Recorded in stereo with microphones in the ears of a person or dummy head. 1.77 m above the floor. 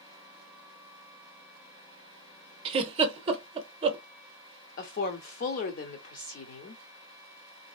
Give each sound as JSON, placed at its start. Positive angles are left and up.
{"t": 2.6, "sound": "a giggle", "side_deg": -30, "distance_m": 0.7}
{"t": 4.8, "sound": "a woman speaking", "side_deg": 40, "distance_m": 0.6}